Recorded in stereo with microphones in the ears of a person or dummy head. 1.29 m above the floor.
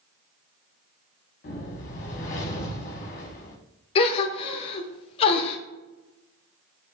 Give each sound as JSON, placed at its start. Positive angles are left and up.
{"t": 1.4, "sound": "a whoosh", "side_deg": 40, "distance_m": 0.9}
{"t": 4.0, "sound": "a gasp", "side_deg": 30, "distance_m": 0.7}